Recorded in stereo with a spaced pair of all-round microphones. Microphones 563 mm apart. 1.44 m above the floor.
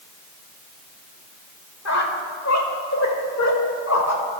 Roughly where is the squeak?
Left.